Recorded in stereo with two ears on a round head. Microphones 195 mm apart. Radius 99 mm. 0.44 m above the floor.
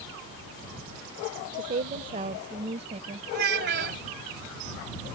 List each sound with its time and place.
1.5 s a woman speaking: 40° right (ahead or behind); by 3.2 s 30° right (ahead or behind)
3.3 s a child speaking: 50° right (ahead or behind)